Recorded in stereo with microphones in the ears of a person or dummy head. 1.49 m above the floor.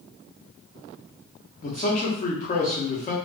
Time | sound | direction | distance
1.6 | a man speaking | 40° left (ahead or behind) | 0.8 m